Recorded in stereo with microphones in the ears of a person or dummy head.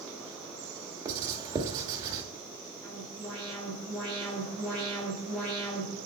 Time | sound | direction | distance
1.1 | writing | 20° right (ahead or behind) | 1.1 m
2.8 | an alarm | 10° left (ahead or behind) | 5.5 m